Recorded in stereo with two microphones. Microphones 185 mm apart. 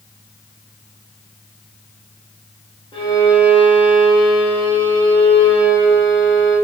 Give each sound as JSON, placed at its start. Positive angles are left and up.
{"t": 2.9, "sound": "a violin", "side_deg": 30, "distance_m": 1.0}